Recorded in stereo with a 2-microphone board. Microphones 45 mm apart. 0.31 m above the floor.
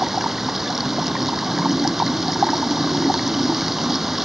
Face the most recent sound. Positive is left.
turn(degrees=-5)  # may be behind; listen again after turning